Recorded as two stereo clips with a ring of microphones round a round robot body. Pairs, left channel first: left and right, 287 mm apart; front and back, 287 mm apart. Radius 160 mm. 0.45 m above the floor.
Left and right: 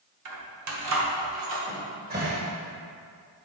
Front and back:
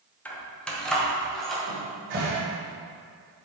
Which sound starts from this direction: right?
Keys jangling, at 0.2 s.